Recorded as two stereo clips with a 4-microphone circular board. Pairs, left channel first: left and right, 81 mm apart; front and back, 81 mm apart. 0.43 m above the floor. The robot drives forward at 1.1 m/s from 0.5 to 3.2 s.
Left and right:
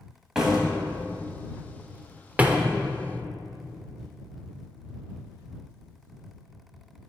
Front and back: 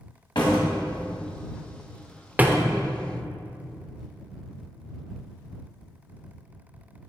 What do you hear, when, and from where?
0.3 s a door slam: 5° right, 1.9 m; by 2.6 s 160° right, 0.8 m